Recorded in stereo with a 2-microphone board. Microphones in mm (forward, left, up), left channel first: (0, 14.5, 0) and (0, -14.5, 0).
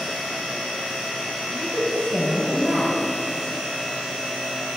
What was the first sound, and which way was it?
A woman speaking, 40° right (ahead or behind).